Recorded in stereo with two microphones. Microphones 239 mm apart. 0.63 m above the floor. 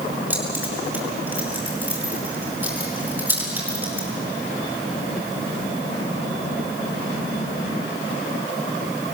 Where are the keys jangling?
10° right (ahead or behind), 5.5 m.